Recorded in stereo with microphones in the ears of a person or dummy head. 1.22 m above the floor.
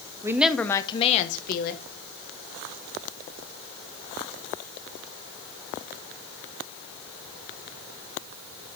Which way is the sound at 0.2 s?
15° right (ahead or behind).